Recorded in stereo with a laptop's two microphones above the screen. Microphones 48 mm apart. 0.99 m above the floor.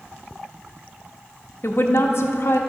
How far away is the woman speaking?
About 1.1 m.